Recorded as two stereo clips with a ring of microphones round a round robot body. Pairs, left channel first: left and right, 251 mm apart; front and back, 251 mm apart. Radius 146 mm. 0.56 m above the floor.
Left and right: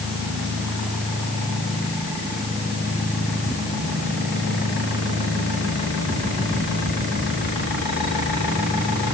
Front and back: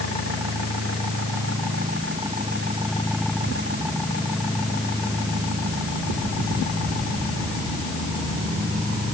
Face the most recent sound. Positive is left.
No sound to turn to.